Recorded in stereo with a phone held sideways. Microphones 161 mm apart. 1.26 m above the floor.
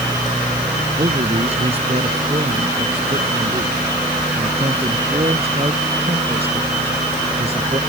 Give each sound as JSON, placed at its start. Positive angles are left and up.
{"t": 1.0, "sound": "a man speaking", "side_deg": -40}